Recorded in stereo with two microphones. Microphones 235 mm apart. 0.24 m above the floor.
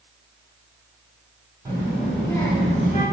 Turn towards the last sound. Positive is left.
turn(degrees=35)  # may be behind; listen again after turning